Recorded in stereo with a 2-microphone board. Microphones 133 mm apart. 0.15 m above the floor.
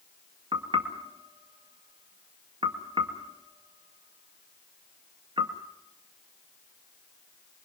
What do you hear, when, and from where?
0.5 s knocking: 45° right (ahead or behind), 1.9 m